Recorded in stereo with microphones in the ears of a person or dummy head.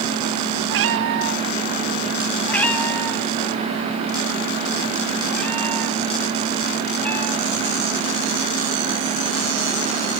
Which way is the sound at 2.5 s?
10° left (ahead or behind).